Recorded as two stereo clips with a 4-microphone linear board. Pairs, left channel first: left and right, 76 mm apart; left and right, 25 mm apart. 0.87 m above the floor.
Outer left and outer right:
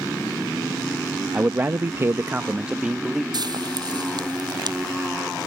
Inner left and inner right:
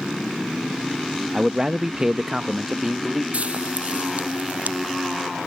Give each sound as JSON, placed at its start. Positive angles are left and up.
{"t": 1.3, "sound": "a man speaking", "side_deg": -25}
{"t": 3.3, "sound": "frying", "side_deg": -65}